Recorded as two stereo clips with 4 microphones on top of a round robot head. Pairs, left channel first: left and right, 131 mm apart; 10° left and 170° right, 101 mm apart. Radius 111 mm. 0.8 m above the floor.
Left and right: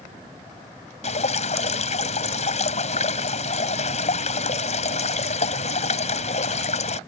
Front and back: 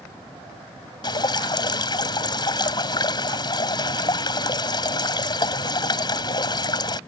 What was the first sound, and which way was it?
Dripping, 55° left.